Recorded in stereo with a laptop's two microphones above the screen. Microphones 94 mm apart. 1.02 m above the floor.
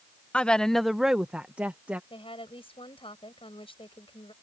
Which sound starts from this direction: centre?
A woman speaking, at 0.3 s.